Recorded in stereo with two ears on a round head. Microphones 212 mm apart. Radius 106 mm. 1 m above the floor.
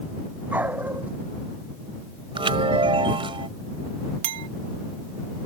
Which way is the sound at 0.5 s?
5° right (ahead or behind).